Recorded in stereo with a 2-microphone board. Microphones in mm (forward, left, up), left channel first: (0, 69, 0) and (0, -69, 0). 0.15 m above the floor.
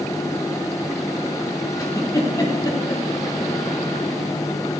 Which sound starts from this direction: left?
A giggle, at 1.8 s.